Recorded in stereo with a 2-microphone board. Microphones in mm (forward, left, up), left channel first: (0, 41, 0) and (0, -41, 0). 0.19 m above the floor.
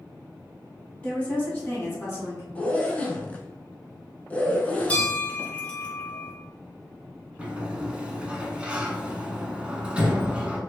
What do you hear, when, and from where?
1.0 s a woman speaking: 15° left (ahead or behind), 1.5 m; by 2.5 s 40° left (ahead or behind), 1.6 m
2.5 s a zipper: 20° left (ahead or behind), 0.7 m
4.9 s a bell: 20° left (ahead or behind), 1.1 m
7.4 s a sliding door: 15° right (ahead or behind), 0.6 m